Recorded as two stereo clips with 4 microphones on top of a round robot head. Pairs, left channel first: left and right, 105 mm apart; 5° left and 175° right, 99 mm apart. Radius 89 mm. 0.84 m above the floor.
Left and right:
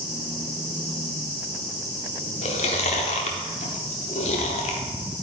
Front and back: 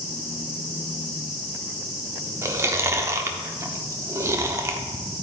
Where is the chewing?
125° left, 0.9 m.